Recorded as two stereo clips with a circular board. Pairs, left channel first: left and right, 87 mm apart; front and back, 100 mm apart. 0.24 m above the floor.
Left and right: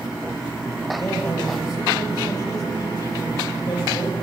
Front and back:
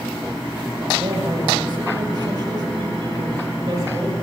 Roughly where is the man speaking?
Behind left.